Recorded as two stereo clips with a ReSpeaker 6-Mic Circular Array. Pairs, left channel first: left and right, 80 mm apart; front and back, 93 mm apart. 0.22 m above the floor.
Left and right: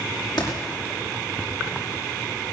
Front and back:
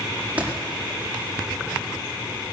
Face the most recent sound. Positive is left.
turn(degrees=110)